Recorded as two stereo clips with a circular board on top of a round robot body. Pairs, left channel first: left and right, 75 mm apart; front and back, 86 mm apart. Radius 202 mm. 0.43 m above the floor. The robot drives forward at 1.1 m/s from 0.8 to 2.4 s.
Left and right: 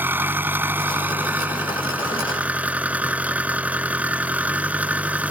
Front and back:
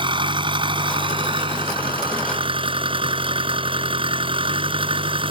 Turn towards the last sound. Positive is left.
turn(degrees=-160)